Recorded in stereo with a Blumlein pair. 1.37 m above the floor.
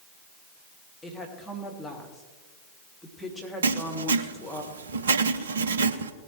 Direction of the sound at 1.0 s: Straight ahead.